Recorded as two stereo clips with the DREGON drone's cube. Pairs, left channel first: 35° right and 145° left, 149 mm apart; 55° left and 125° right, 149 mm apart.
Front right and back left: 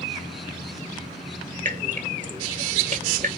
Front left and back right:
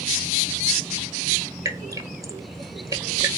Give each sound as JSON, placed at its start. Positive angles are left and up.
{"t": 1.6, "sound": "dripping", "azimuth_deg": 170, "distance_m": 1.2}